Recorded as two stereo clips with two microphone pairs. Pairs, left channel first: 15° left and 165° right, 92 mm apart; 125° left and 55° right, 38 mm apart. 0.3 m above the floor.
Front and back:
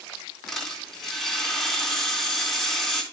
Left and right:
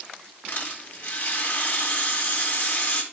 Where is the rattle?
105° left, 3 m.